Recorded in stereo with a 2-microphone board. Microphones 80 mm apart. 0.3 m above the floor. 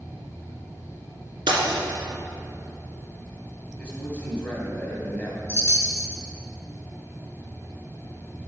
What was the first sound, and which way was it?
Breaking glass, 75° right (ahead or behind).